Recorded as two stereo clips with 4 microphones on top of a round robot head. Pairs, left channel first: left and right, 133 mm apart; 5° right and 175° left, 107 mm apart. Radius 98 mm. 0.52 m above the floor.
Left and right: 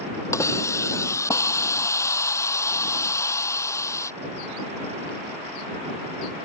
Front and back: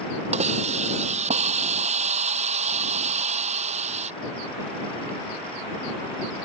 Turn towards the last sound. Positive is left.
turn(degrees=160)